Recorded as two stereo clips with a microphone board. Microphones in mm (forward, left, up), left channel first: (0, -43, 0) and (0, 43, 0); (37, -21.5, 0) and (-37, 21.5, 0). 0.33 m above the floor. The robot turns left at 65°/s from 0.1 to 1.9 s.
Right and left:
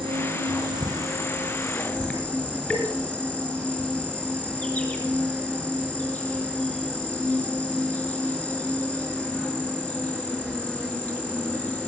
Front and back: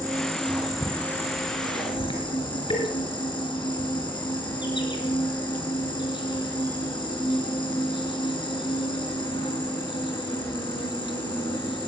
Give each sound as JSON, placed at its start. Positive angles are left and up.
{"t": 0.0, "sound": "an insect", "azimuth_deg": 105, "distance_m": 5.5}